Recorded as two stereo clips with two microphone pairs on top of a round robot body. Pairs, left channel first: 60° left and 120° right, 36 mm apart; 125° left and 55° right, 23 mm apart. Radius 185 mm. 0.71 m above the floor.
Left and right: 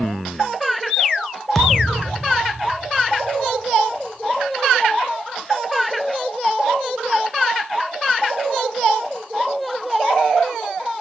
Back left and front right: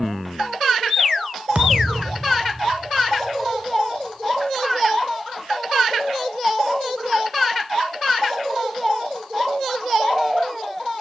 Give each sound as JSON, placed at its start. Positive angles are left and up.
{"t": 1.6, "sound": "a thud", "azimuth_deg": -25, "distance_m": 1.1}